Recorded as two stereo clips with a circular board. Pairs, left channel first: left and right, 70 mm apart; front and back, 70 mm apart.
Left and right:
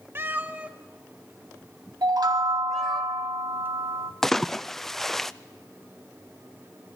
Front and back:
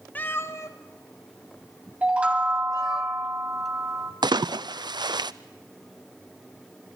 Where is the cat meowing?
55° right, 1.2 m; by 3.0 s 5° left, 3.5 m.